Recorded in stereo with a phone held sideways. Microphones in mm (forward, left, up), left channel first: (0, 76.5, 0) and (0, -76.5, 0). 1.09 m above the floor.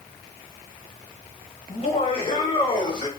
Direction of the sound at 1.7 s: 45° left (ahead or behind).